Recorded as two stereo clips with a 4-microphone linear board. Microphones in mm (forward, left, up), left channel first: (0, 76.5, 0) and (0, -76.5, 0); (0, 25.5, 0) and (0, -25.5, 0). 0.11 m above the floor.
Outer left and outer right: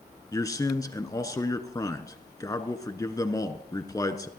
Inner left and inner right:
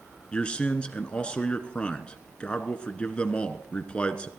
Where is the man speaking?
25° left (ahead or behind), 1.1 m.